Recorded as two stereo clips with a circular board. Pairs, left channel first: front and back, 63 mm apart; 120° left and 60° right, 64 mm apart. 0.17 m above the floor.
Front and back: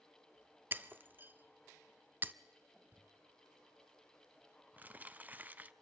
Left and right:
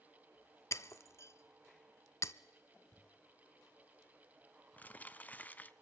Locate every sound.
0.7 s breaking glass: 135° left, 0.6 m
2.9 s crumpling: 155° left, 0.6 m